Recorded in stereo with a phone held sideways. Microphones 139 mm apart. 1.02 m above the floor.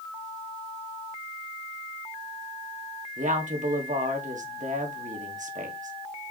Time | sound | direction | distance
3.2 | a woman speaking | 65° right (ahead or behind) | 1.6 m